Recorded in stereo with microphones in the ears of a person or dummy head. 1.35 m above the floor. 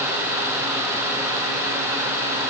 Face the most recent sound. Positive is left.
No sound to turn to.